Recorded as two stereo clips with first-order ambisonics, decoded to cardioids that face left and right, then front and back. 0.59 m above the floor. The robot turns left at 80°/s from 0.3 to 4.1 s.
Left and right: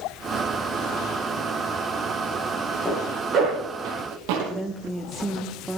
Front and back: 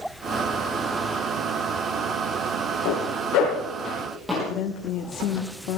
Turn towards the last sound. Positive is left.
turn(degrees=-10)